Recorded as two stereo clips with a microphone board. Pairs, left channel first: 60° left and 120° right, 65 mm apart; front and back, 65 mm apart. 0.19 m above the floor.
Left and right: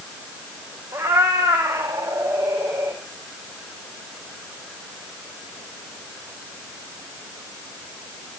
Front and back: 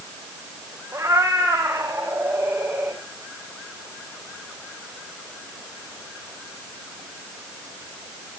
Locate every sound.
0.9 s a cat meowing: 130° right, 5 m; by 3.0 s 110° right, 7 m